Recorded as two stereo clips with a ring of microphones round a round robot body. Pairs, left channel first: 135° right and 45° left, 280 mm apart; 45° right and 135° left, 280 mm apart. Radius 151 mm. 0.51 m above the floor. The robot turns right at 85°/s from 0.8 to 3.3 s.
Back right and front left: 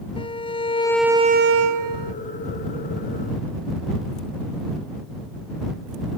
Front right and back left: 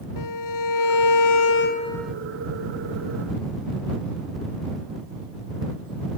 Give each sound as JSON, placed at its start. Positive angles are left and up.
{"t": 0.2, "sound": "a violin", "azimuth_deg": -60}